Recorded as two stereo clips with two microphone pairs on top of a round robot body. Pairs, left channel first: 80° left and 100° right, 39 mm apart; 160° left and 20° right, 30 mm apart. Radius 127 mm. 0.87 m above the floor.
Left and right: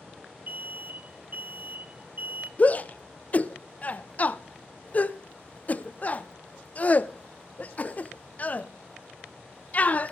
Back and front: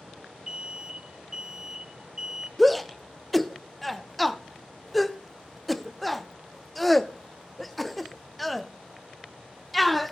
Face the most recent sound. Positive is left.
turn(degrees=80)